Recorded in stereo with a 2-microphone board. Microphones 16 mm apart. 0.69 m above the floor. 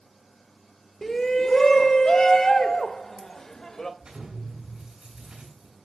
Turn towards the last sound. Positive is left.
turn(degrees=-60)  # may be behind; listen again after turning